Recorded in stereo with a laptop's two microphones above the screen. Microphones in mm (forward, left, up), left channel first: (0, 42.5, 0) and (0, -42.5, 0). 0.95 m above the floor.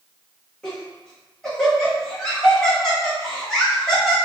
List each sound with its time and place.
0.6 s laughter: 5° left (ahead or behind), 1.0 m